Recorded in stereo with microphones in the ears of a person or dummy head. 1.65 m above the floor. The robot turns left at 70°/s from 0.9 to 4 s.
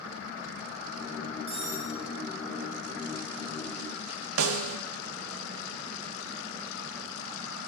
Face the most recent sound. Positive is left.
turn(degrees=-80)